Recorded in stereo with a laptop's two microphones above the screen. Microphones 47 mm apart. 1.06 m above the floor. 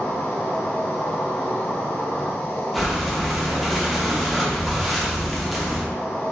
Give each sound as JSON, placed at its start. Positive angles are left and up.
{"t": 0.0, "sound": "an insect", "side_deg": 65, "distance_m": 0.9}
{"t": 2.7, "sound": "breathing", "side_deg": 0, "distance_m": 0.7}